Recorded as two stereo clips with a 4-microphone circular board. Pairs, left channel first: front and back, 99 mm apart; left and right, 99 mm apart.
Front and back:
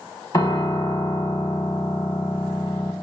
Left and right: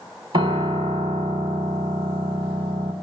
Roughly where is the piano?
Ahead right.